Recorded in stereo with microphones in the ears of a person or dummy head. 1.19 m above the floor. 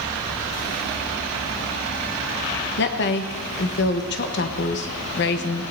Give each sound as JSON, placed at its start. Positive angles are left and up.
{"t": 2.8, "sound": "a woman speaking", "side_deg": 55, "distance_m": 1.2}